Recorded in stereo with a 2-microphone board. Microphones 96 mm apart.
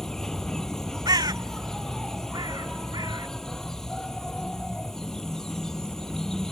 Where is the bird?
45° right (ahead or behind).